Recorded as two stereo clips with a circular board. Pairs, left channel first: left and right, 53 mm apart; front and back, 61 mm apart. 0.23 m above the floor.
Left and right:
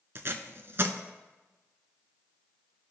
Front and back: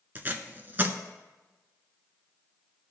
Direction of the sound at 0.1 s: 125° right.